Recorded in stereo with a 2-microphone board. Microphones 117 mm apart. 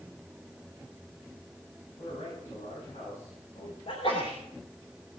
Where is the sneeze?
60° left (ahead or behind), 3 m.